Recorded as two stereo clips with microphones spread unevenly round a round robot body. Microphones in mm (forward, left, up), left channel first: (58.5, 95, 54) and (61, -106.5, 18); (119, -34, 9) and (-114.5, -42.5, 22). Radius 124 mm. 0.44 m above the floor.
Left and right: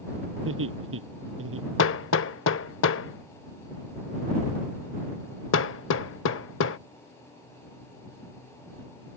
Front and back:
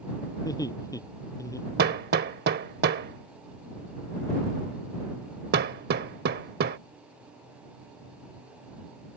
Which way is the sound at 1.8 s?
130° left.